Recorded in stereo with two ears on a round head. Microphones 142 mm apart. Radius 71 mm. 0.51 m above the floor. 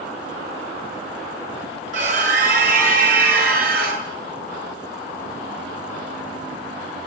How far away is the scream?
About 7.5 m.